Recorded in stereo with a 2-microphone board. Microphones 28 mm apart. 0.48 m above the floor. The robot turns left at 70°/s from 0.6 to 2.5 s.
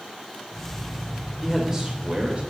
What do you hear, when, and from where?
1.4 s a man speaking: 5° right, 2 m; by 2.4 s 75° right, 2 m